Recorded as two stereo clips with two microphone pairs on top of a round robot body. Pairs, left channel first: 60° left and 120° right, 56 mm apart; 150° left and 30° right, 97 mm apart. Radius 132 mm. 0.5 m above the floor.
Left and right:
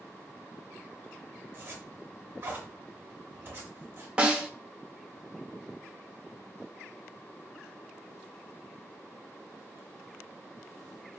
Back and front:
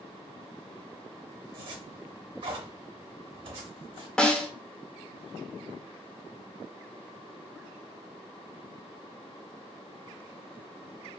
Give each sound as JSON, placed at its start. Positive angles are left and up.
{"t": 1.5, "sound": "a zipper", "azimuth_deg": -65, "distance_m": 0.7}
{"t": 4.2, "sound": "a snare drum", "azimuth_deg": -140, "distance_m": 0.8}